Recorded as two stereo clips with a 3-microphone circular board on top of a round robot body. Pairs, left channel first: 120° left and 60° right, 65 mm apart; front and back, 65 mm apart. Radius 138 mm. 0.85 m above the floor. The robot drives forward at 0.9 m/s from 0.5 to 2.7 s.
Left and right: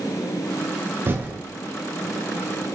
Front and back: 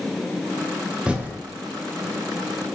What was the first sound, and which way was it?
Typing on a keyboard, 105° right.